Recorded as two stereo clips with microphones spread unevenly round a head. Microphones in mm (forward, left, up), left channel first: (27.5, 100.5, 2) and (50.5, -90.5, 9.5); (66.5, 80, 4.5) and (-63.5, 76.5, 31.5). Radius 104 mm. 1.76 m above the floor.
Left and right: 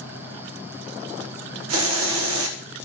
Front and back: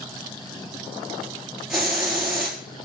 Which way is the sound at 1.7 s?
95° right.